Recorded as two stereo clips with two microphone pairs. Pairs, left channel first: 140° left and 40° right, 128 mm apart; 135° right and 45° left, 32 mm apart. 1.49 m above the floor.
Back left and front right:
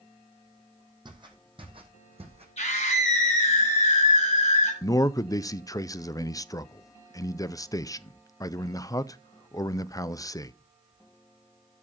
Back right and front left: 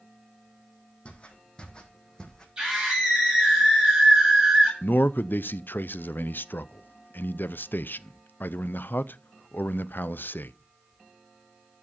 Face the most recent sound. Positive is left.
turn(degrees=-150)